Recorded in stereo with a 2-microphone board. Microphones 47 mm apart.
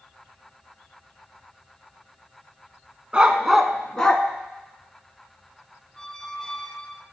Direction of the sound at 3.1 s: 20° right (ahead or behind).